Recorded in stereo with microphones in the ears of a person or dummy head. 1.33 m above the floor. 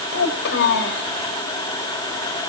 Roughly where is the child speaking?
Left.